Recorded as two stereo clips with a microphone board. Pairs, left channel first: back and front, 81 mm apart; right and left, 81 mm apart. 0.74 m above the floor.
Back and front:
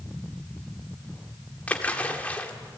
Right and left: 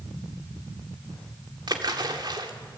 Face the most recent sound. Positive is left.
turn(degrees=110)